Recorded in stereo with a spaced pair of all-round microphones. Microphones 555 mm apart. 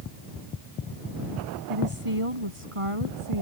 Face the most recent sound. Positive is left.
turn(degrees=-70)  # may be behind; listen again after turning